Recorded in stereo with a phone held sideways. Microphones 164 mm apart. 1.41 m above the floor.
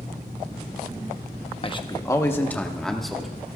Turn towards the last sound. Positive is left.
turn(degrees=0)  # may be behind; listen again after turning